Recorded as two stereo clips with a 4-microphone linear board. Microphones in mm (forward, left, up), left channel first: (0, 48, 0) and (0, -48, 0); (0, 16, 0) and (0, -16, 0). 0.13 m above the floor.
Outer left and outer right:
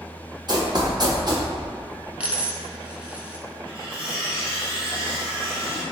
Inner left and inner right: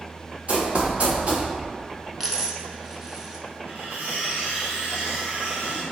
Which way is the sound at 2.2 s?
15° right (ahead or behind).